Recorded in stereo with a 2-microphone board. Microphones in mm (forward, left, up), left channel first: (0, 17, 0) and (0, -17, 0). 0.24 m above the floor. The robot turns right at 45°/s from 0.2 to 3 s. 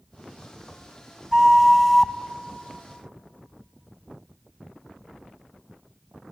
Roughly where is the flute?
Ahead right.